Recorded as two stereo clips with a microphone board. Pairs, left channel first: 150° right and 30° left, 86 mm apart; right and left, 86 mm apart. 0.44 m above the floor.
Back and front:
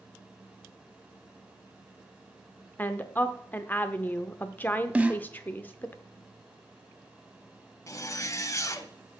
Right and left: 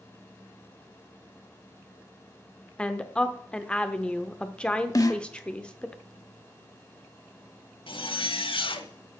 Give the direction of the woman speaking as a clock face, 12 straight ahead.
5 o'clock.